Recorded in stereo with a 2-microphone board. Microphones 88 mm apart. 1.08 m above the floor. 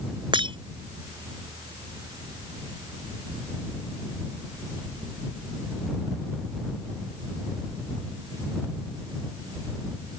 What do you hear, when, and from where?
0.3 s breaking glass: 70° right (ahead or behind)